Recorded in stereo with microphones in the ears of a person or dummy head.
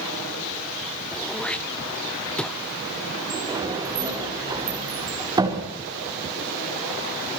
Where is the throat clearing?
5° left (ahead or behind), 1.1 m.